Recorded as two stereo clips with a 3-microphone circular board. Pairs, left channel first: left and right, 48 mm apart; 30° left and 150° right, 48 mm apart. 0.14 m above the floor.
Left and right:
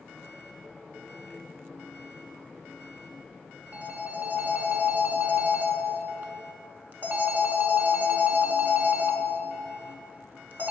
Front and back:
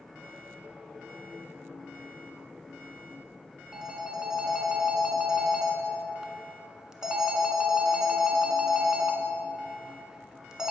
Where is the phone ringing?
80° right, 0.8 m.